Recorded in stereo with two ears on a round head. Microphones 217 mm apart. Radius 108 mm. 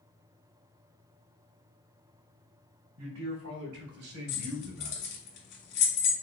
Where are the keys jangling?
45° left (ahead or behind), 2 m.